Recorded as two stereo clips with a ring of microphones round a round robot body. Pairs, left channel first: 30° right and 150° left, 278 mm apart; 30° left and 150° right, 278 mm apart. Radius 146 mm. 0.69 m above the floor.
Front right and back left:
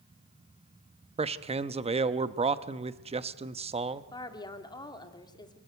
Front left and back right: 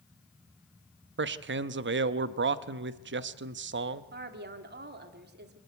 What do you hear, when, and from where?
1.2 s a man speaking: 155° right, 0.8 m
4.1 s a woman speaking: 105° right, 2 m